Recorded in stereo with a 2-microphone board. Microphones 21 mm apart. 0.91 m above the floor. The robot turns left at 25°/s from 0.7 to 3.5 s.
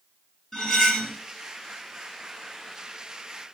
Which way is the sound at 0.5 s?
20° left (ahead or behind).